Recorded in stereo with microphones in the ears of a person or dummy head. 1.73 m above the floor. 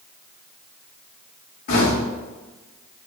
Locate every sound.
1.7 s knocking: 60° left (ahead or behind), 2.5 m